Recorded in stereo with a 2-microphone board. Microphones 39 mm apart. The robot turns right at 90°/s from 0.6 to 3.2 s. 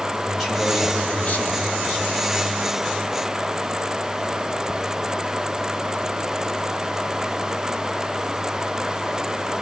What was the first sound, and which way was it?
A man speaking, 5° right.